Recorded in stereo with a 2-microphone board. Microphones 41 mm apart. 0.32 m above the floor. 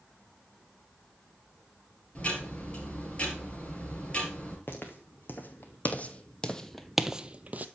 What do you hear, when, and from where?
2.1 s ticking: 30° left (ahead or behind), 3 m
4.7 s footsteps: 60° left (ahead or behind), 1.5 m; by 7.7 s 40° right (ahead or behind), 0.6 m